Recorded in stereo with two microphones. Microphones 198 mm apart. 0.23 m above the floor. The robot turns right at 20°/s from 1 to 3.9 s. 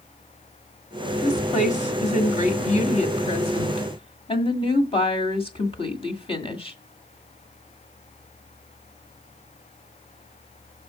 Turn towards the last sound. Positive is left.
turn(degrees=130)